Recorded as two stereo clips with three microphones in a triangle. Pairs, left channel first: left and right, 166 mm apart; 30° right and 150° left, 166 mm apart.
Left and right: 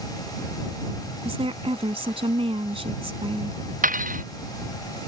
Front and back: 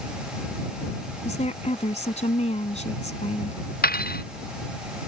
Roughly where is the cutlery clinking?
Ahead right.